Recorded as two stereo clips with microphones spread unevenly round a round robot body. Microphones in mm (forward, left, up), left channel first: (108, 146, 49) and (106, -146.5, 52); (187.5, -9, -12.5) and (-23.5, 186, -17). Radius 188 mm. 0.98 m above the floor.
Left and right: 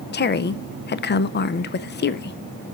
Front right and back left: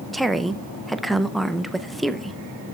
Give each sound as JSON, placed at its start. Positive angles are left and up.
{"t": 0.1, "sound": "a woman speaking", "azimuth_deg": 50, "distance_m": 0.6}